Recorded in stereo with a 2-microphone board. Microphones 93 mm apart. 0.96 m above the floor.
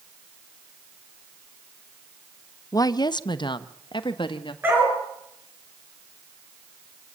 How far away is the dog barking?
About 6.5 m.